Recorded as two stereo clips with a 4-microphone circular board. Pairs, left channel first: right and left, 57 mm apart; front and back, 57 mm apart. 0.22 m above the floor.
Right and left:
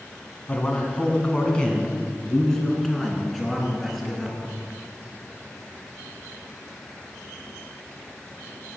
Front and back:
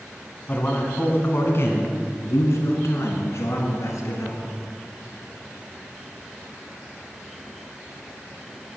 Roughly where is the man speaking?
Ahead right.